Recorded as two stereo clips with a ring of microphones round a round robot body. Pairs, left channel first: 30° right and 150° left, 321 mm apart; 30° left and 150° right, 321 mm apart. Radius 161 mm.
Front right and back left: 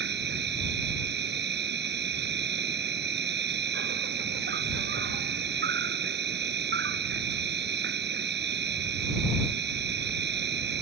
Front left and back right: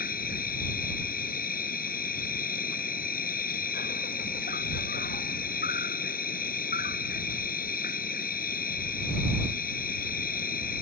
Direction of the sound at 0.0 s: 95° left.